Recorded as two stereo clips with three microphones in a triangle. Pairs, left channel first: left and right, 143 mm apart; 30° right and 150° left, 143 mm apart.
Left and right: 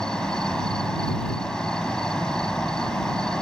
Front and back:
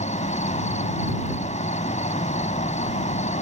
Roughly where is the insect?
Ahead.